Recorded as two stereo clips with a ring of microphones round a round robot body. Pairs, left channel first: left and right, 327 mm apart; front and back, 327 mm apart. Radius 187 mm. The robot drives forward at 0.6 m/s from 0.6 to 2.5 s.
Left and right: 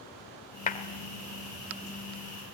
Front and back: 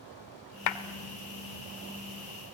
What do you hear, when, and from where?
0.7 s a clap: 25° left, 1.4 m